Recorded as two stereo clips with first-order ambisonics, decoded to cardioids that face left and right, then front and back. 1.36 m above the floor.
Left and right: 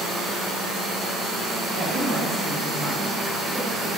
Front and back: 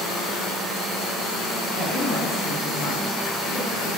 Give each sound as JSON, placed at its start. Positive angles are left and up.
{"t": 1.7, "sound": "a woman speaking", "azimuth_deg": -40, "distance_m": 2.5}